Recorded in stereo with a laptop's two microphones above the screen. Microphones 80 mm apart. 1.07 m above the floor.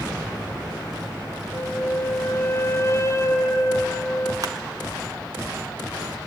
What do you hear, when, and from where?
1.5 s a flute: 35° left (ahead or behind), 1.6 m
4.4 s crushing: 50° right (ahead or behind), 1.5 m